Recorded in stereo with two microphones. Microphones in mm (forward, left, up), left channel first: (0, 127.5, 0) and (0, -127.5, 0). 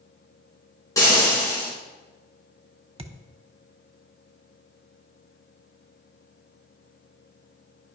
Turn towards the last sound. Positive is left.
turn(degrees=-25)  # may be behind; listen again after turning